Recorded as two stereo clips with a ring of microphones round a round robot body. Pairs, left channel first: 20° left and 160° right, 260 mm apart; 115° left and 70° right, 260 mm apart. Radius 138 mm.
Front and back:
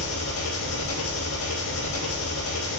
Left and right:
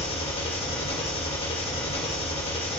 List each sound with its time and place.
0.0 s an engine running: 45° left, 1.8 m